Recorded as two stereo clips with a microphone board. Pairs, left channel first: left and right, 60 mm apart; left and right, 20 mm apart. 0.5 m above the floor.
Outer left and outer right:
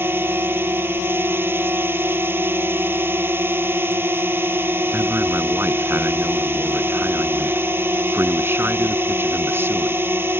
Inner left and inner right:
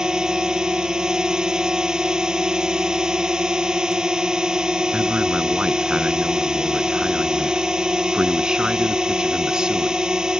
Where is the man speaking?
40° right (ahead or behind).